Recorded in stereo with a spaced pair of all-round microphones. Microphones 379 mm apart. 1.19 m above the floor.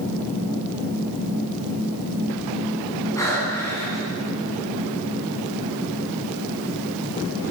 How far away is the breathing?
About 10 m.